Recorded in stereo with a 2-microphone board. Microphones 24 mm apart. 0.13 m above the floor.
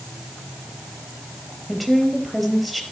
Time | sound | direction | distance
1.7 | a woman speaking | centre (ahead or behind) | 2.5 m